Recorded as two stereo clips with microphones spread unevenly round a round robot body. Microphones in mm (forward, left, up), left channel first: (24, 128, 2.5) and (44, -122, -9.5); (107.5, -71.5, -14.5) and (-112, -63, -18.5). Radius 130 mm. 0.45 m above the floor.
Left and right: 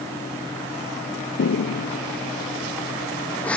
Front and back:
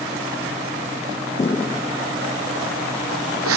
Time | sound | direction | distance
1.4 | footsteps | 65° left | ?